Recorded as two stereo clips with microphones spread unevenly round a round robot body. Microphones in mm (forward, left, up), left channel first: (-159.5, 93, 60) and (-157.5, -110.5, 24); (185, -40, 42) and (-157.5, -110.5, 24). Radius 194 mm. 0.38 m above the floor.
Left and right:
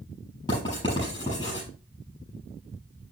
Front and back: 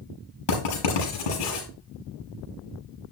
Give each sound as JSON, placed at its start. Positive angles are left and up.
{"t": 0.5, "sound": "writing", "azimuth_deg": 10, "distance_m": 6.5}